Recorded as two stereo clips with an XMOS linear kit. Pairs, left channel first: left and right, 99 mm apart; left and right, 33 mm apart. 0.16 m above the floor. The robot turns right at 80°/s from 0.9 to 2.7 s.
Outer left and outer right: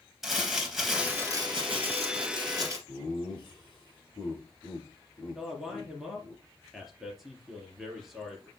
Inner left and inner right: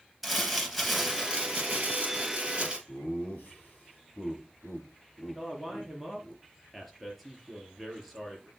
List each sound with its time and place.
0.2 s crumpling: 175° right, 3.5 m; by 2.8 s 30° right, 3.5 m
2.9 s laughter: 50° left (ahead or behind), 5.5 m
5.3 s a man speaking: centre (ahead or behind), 3.5 m